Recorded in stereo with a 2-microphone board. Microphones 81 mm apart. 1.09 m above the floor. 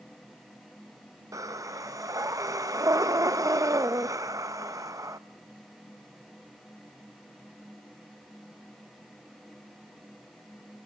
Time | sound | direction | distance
1.3 | breathing | 45° right (ahead or behind) | 0.5 m